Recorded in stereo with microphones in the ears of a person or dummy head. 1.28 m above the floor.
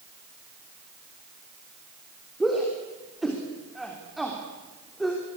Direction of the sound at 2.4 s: Centre (ahead or behind).